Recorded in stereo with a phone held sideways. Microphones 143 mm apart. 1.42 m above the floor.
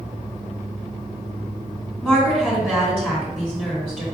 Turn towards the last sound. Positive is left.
turn(degrees=5)  # may be behind; listen again after turning